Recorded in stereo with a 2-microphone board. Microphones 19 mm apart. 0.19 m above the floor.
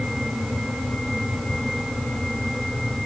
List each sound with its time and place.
Only background noise.